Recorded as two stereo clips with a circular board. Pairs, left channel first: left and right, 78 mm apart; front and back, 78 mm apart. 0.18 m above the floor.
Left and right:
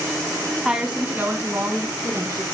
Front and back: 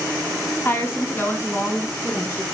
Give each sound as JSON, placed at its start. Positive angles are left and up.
{"t": 0.7, "sound": "a woman speaking", "azimuth_deg": -15, "distance_m": 1.1}